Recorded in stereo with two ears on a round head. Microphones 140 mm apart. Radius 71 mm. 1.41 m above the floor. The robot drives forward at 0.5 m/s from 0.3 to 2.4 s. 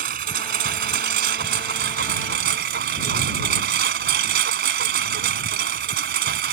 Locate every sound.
0.0 s a lawn mower: 60° right (ahead or behind); by 6.5 s 70° right (ahead or behind)